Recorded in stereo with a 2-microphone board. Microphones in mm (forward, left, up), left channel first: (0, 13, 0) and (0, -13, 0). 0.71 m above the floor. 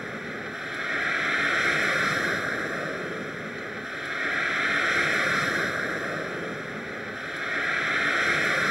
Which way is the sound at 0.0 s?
10° right (ahead or behind).